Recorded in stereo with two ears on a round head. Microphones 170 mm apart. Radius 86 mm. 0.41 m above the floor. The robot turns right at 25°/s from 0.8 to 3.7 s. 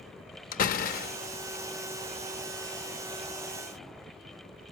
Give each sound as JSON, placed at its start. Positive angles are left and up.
{"t": 0.5, "sound": "a door slam", "side_deg": 45, "distance_m": 0.6}